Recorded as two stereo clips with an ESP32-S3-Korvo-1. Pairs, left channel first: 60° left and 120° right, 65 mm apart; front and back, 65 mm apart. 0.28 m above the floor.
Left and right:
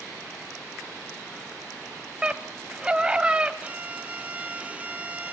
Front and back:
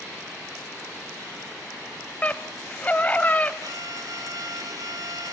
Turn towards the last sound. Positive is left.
turn(degrees=170)